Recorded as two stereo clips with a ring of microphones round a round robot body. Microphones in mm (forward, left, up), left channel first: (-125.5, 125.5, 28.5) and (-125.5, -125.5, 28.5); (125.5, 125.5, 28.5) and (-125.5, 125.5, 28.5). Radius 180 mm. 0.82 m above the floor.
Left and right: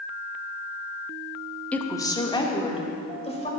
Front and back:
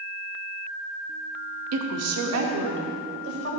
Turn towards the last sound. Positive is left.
turn(degrees=155)